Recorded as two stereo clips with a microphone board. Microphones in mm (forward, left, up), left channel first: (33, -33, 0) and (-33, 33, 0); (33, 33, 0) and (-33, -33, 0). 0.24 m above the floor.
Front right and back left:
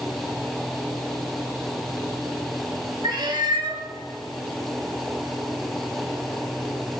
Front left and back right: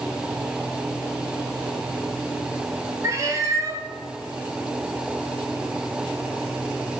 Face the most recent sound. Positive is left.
turn(degrees=170)